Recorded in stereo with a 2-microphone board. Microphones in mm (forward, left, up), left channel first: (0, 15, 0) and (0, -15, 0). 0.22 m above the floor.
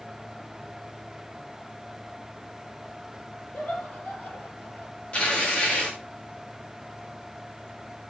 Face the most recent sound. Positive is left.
turn(degrees=40)  # may be behind; listen again after turning